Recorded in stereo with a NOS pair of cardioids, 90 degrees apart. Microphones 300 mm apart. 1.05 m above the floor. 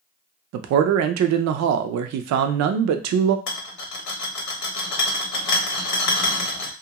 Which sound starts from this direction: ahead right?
A man speaking, at 0.5 s.